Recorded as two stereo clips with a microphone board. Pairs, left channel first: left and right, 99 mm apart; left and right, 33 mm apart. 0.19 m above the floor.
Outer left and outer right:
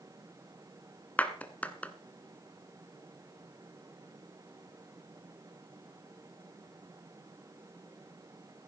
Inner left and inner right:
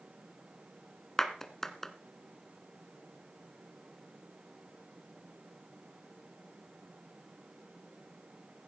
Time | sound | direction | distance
1.2 | a clap | 15° left (ahead or behind) | 1.4 m